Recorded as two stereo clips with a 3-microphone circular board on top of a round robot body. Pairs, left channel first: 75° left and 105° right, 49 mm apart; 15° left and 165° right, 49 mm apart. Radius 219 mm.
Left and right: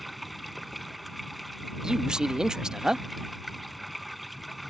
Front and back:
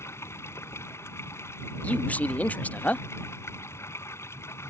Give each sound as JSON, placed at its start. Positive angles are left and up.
{"t": 0.0, "sound": "running water", "azimuth_deg": -15}
{"t": 1.8, "sound": "a man speaking", "azimuth_deg": -35}